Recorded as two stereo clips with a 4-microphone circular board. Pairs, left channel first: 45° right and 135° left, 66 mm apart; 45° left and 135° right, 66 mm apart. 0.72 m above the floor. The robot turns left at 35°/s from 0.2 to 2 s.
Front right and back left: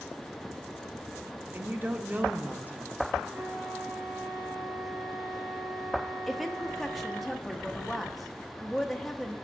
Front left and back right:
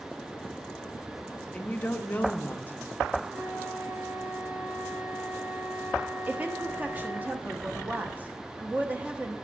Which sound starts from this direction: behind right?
A woman speaking, at 6.3 s.